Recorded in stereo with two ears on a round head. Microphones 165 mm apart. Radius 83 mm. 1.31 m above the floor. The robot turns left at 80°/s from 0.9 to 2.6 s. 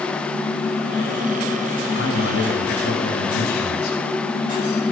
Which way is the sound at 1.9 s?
110° left.